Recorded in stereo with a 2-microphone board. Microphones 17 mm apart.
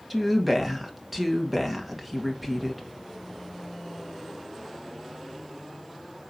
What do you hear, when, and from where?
0.1 s a woman speaking: 10° right (ahead or behind), 2 m